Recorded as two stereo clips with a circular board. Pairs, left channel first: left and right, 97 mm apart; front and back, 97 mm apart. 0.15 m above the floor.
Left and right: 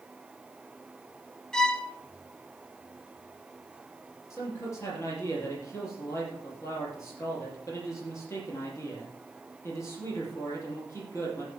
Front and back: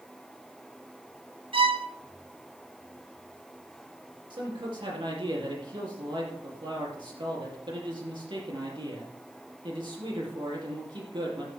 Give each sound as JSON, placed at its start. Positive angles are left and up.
{"t": 1.5, "sound": "a violin", "azimuth_deg": 170, "distance_m": 1.0}
{"t": 4.3, "sound": "a man speaking", "azimuth_deg": 150, "distance_m": 5.0}